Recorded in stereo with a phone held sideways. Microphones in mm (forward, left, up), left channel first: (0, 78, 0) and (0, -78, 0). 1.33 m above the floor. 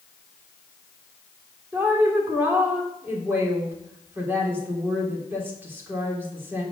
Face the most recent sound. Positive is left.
turn(degrees=-15)  # may be behind; listen again after turning